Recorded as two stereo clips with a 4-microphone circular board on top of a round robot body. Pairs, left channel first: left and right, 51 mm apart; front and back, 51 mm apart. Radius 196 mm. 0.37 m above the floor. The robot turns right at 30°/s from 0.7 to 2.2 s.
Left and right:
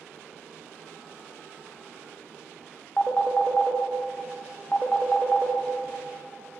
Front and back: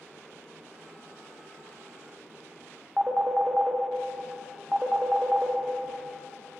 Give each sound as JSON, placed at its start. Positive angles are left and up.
{"t": 3.0, "sound": "a phone ringing", "azimuth_deg": 145, "distance_m": 0.7}